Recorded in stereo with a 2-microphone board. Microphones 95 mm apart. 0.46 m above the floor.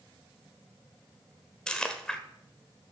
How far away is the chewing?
About 1.1 m.